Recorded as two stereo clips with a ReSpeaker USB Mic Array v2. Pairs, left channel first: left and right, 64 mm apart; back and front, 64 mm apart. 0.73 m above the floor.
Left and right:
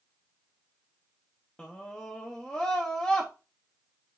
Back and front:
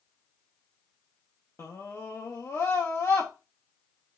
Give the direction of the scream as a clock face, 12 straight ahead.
7 o'clock.